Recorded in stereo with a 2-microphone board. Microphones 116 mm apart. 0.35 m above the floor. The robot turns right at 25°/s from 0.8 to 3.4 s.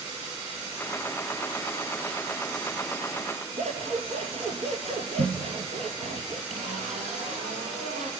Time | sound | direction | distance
3.6 | scissors | 70° right (ahead or behind) | 3 m
6.5 | a zipper | 85° right | 3.5 m